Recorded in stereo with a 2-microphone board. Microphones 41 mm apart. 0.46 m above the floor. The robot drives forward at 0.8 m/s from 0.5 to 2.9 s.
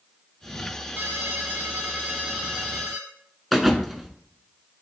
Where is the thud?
Centre (ahead or behind), 0.8 m.